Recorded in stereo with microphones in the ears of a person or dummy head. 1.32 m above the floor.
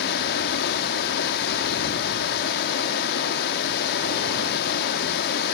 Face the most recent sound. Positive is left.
turn(degrees=60)  # may be behind; listen again after turning